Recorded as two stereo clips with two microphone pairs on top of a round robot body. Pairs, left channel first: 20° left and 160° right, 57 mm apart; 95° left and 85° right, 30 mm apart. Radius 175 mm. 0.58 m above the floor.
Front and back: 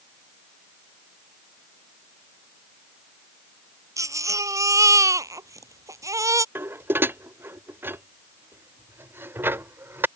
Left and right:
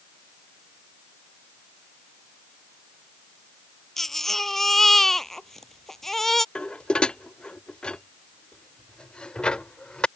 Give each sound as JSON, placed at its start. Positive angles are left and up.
{"t": 4.0, "sound": "a baby crying", "azimuth_deg": 170}
{"t": 6.5, "sound": "dishes clattering", "azimuth_deg": 150}